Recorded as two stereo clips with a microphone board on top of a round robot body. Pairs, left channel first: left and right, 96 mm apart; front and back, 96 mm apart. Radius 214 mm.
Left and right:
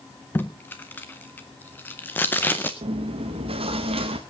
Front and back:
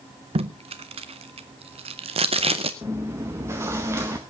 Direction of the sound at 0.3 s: 160° left.